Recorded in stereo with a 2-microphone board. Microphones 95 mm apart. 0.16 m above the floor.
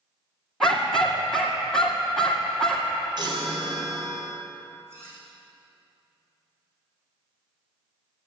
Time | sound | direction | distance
0.6 | a dog barking | 5° left (ahead or behind) | 2 m
3.2 | a chime | 50° right (ahead or behind) | 3 m
4.9 | cutlery clinking | 25° right (ahead or behind) | 5.5 m